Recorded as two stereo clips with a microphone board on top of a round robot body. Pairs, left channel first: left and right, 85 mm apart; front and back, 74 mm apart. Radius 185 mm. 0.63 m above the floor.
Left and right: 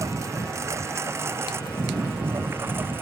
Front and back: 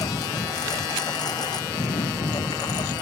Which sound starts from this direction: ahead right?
A lawn mower, at 0.0 s.